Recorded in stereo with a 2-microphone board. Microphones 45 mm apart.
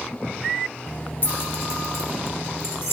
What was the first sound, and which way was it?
Keys jangling, 45° left (ahead or behind).